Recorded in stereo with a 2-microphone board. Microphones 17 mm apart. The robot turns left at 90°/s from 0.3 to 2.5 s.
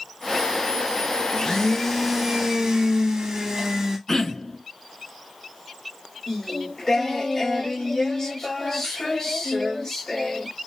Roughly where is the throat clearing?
Left.